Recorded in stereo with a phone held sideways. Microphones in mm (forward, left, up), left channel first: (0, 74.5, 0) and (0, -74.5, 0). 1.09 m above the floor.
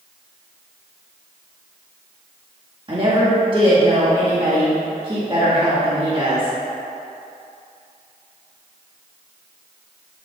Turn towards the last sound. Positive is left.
turn(degrees=-35)  # may be behind; listen again after turning